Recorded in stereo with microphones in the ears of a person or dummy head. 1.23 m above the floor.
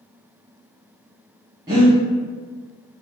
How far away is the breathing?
About 1.3 m.